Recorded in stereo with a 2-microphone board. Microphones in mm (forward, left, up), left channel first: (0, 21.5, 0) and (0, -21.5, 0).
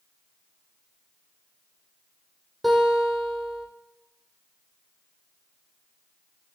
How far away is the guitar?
About 5 m.